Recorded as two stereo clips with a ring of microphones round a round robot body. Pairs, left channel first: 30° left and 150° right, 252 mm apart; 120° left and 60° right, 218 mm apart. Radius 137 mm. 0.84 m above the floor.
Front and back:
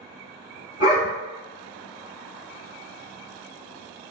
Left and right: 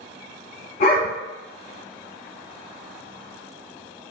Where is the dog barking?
75° left, 1.1 m.